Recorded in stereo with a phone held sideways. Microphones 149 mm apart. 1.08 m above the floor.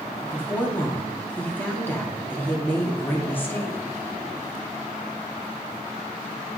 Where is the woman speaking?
15° left (ahead or behind), 2.5 m.